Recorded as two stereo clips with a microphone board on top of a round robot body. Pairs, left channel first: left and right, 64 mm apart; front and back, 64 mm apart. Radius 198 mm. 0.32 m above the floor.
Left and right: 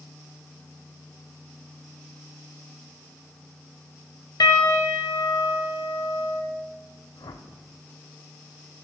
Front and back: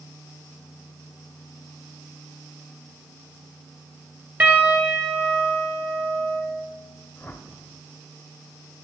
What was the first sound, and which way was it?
A piano, 115° left.